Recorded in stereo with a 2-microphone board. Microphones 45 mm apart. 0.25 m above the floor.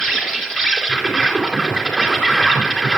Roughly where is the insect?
Centre.